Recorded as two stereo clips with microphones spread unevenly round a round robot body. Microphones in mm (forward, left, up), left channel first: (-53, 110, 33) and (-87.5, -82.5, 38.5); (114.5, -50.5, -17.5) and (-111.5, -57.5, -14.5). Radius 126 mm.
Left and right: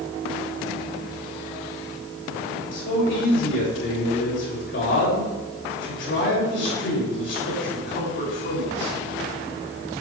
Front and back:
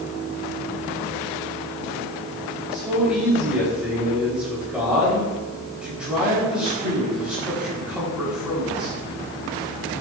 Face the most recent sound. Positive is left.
turn(degrees=95)